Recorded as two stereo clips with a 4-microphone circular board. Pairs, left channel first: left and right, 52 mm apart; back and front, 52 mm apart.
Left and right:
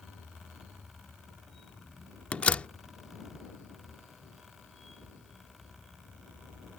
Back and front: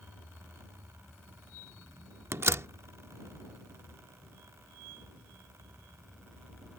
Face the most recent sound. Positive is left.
turn(degrees=30)